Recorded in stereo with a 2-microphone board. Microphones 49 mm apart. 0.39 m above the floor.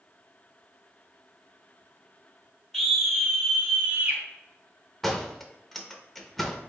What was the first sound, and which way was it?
A scream, 10° left (ahead or behind).